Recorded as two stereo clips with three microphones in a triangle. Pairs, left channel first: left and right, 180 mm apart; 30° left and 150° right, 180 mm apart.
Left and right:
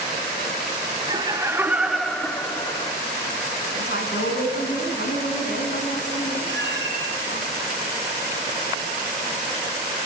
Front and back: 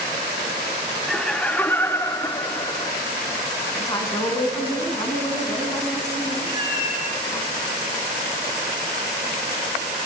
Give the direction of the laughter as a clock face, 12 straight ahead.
2 o'clock.